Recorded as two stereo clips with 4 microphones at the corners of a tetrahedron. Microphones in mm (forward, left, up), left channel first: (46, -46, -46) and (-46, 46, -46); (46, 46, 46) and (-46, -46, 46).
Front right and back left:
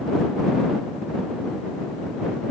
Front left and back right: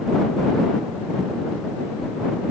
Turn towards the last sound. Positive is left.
No sound to turn to.